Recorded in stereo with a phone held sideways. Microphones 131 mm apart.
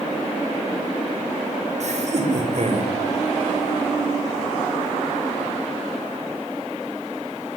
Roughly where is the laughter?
Right.